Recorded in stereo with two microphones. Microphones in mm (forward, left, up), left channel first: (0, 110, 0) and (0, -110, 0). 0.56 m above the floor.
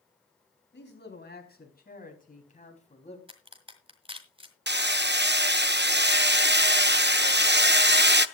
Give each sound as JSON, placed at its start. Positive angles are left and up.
{"t": 0.7, "sound": "a man speaking", "side_deg": 50, "distance_m": 3.5}
{"t": 3.3, "sound": "a crack", "side_deg": -25, "distance_m": 1.8}
{"t": 4.7, "sound": "hammering", "side_deg": -50, "distance_m": 0.5}